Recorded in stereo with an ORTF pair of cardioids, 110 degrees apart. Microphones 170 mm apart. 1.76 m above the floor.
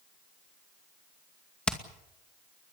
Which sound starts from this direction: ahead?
Hammering, at 1.7 s.